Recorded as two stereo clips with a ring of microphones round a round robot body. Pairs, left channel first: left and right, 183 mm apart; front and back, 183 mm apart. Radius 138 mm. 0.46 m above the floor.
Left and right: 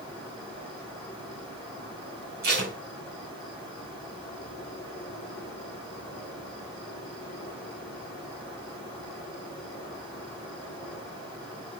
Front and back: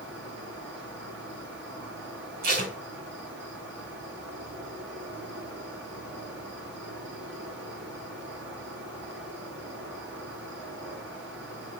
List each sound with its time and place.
0.0 s an insect: 165° left, 9 m
2.4 s tape being pulled: 135° right, 3 m